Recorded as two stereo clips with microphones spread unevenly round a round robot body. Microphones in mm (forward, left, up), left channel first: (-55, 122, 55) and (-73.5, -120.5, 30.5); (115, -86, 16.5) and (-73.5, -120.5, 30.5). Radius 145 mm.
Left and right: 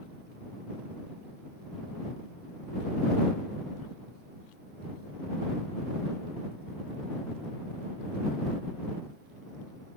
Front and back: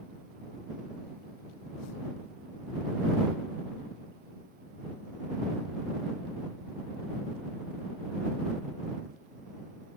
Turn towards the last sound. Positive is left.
No sound to turn to.